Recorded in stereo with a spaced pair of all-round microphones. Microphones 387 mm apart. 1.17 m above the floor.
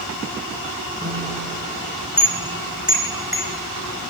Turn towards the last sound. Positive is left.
turn(degrees=-5)  # may be behind; listen again after turning